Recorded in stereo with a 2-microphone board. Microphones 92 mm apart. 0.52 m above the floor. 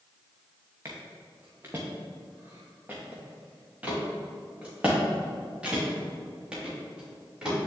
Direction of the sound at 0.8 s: 30° right (ahead or behind).